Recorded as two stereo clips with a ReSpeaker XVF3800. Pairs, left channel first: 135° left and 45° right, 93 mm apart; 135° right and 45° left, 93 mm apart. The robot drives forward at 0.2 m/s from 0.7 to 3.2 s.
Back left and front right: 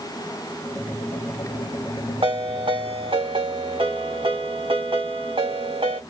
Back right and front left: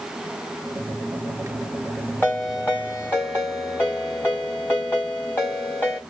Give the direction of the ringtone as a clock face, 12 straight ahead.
2 o'clock.